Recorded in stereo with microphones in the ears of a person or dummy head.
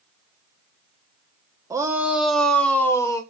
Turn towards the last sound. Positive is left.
turn(degrees=15)  # may be behind; listen again after turning